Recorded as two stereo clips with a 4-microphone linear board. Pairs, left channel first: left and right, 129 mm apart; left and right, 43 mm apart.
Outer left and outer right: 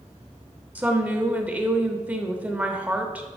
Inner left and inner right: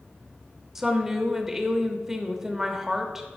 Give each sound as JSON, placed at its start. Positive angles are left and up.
{"t": 0.8, "sound": "a woman speaking", "side_deg": -10, "distance_m": 0.8}